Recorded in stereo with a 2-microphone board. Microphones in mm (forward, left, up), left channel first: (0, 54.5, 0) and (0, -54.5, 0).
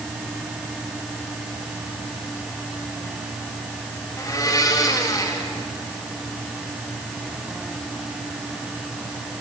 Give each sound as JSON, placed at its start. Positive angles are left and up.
{"t": 4.2, "sound": "a blender", "side_deg": 35, "distance_m": 3.0}